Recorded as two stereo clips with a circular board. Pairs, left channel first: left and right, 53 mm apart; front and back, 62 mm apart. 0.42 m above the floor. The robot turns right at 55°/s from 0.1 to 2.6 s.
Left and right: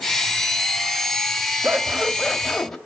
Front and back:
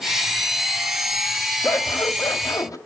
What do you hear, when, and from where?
1.6 s scissors: 40° right, 1.7 m; by 2.8 s 10° left, 1.7 m